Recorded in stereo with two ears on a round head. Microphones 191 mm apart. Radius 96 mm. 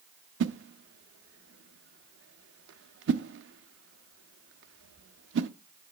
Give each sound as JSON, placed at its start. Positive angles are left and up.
{"t": 0.4, "sound": "a whoosh", "side_deg": -55, "distance_m": 0.6}